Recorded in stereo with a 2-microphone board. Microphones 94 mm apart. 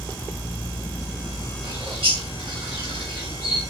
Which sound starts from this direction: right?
A bird, at 1.6 s.